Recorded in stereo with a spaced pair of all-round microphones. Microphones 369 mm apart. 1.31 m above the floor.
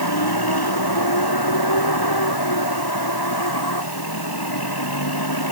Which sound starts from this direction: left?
A vehicle, at 0.0 s.